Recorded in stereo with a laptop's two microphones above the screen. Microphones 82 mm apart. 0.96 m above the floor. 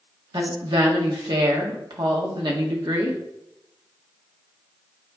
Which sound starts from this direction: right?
A woman speaking, at 0.3 s.